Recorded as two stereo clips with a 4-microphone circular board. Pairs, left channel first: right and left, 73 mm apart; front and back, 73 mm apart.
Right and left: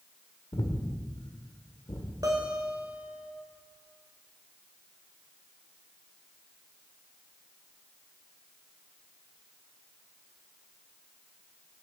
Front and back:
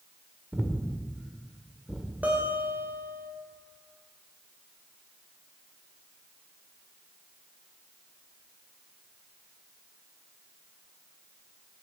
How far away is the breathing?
About 1.4 m.